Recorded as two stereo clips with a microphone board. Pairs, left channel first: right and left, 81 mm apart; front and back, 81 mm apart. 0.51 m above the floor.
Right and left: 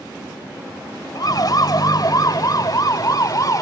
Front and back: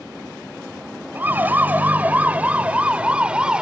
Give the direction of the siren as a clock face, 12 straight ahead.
4 o'clock.